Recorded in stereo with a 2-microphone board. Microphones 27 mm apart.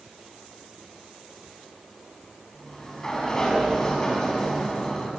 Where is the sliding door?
25° left (ahead or behind), 7 m.